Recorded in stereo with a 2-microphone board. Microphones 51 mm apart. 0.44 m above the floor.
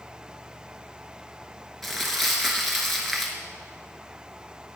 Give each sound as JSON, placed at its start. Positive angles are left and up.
{"t": 1.8, "sound": "crumpling", "side_deg": 0, "distance_m": 1.2}